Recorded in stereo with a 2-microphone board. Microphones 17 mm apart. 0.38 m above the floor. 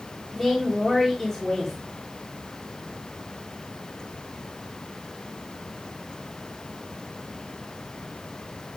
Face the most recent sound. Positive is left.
turn(degrees=-10)  # may be behind; listen again after turning